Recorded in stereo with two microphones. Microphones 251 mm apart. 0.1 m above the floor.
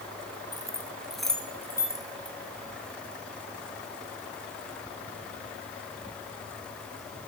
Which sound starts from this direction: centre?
Keys jangling, at 0.5 s.